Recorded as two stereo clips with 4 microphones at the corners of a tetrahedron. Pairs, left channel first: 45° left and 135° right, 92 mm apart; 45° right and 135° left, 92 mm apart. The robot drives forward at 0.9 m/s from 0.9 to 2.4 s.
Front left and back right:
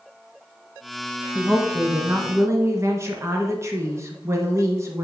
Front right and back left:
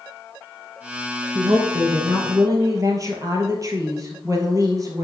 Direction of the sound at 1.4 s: 160° left.